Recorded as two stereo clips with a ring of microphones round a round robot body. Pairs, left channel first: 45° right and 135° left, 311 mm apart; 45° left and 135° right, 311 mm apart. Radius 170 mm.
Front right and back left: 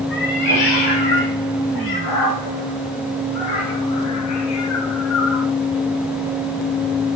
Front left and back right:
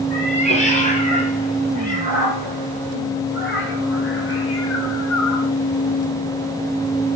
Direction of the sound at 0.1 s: 25° right.